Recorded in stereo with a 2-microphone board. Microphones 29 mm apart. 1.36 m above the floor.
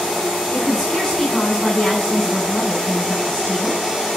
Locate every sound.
0.5 s a woman speaking: 25° left (ahead or behind), 5.5 m